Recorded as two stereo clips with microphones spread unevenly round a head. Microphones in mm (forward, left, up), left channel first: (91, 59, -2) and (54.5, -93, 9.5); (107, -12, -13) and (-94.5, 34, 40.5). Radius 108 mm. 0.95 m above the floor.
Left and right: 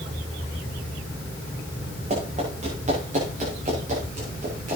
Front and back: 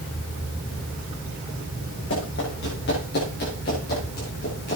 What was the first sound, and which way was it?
Running footsteps, 60° right.